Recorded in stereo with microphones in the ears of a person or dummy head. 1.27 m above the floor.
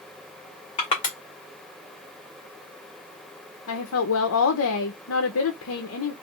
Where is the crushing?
25° left (ahead or behind), 1.9 m.